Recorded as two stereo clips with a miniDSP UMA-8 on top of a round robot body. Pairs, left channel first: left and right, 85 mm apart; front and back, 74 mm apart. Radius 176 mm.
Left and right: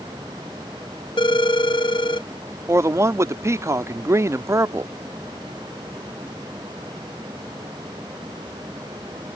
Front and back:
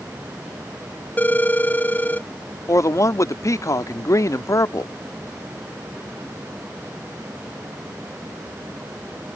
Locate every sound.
1.2 s a phone ringing: 65° left
2.7 s a man speaking: 40° right